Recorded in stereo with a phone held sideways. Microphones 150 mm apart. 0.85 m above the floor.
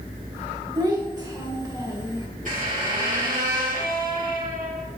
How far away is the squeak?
About 2.5 m.